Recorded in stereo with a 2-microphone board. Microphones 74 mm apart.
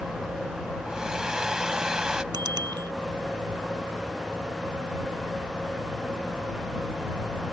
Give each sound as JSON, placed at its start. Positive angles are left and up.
{"t": 0.9, "sound": "a hair dryer", "side_deg": -10}
{"t": 2.3, "sound": "a bicycle bell", "side_deg": -75}